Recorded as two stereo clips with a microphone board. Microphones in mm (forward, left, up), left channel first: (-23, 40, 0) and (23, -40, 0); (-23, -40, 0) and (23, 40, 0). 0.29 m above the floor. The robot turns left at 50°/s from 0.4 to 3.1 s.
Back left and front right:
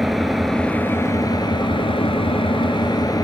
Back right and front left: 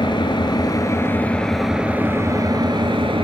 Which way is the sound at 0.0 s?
150° right.